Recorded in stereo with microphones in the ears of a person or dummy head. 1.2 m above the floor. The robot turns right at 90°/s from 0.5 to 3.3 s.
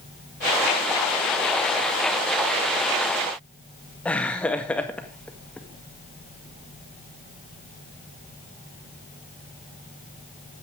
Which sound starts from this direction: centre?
Laughter, at 4.0 s.